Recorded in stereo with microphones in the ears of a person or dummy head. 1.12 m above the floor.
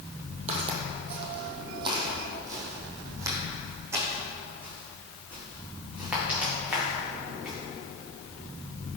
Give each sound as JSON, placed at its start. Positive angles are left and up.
{"t": 0.5, "sound": "footsteps", "side_deg": -40, "distance_m": 1.6}